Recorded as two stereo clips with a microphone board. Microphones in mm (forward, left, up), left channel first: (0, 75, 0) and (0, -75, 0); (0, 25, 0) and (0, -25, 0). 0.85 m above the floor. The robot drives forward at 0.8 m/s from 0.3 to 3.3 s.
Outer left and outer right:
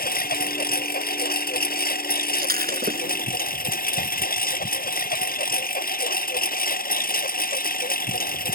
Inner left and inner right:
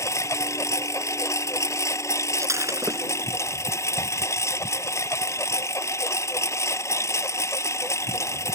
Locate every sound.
0.0 s a lawn mower: 80° left; by 8.6 s 75° left (ahead or behind)
2.4 s breaking glass: 80° right; by 3.3 s 85° right